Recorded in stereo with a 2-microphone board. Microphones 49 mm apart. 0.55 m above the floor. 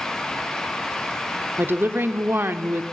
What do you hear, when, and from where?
1.6 s a woman speaking: 45° right (ahead or behind), 1.0 m